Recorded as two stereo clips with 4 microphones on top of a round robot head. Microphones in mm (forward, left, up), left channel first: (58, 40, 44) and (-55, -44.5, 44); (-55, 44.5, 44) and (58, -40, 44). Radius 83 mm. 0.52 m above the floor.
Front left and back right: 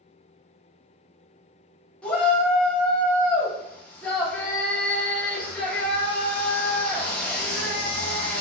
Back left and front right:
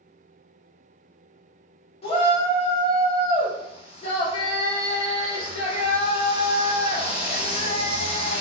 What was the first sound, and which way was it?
A shout, 115° left.